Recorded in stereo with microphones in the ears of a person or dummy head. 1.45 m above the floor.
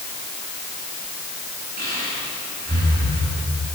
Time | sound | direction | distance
1.8 | breathing | 55° right (ahead or behind) | 9 m